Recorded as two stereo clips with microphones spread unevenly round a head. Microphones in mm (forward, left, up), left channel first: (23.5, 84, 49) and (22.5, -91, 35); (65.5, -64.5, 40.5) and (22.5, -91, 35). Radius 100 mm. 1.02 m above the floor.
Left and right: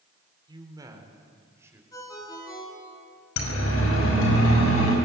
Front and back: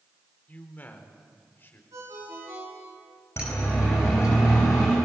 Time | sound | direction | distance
0.5 | a man speaking | 25° right | 4 m
1.9 | a ringtone | 165° left | 6.5 m
3.4 | a siren | 100° left | 5 m